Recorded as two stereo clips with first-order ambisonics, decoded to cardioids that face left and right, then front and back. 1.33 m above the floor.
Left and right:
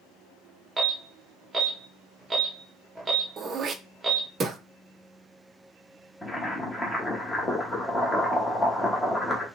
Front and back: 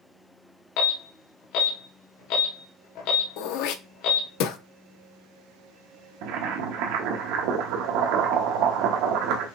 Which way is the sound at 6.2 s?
170° left.